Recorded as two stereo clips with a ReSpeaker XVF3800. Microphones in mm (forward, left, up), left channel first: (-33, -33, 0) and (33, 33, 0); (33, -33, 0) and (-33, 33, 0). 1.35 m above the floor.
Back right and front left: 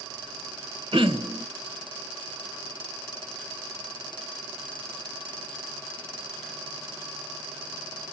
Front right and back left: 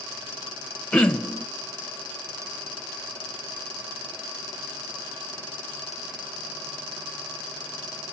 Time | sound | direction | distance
0.9 | throat clearing | 35° left | 0.8 m